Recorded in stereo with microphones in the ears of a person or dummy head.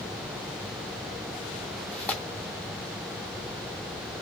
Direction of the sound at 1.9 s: 10° left (ahead or behind).